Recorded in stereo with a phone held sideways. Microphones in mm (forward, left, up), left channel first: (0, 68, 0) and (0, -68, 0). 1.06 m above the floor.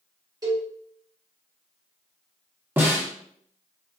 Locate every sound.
0.4 s a cowbell: 25° right (ahead or behind), 1.2 m
2.8 s a snare drum: 15° right (ahead or behind), 0.8 m